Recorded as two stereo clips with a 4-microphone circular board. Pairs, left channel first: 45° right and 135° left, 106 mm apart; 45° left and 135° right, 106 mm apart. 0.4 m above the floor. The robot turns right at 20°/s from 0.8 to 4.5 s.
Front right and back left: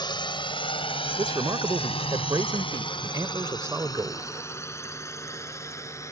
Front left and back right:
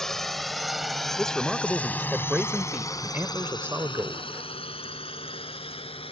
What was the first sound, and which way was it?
A drone, 40° right.